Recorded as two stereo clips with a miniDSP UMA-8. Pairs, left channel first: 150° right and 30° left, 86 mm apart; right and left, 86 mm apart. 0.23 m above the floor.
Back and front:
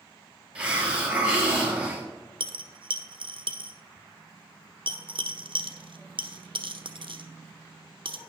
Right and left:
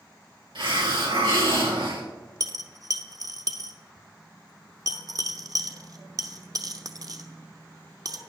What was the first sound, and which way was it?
A hiss, 105° left.